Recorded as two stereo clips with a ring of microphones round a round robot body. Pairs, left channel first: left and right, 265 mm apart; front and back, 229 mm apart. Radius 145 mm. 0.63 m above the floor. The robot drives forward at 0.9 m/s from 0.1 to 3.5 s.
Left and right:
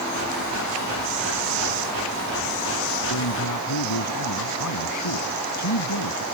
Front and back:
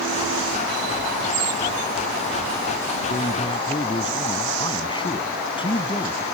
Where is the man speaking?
65° left; by 6.2 s 70° left.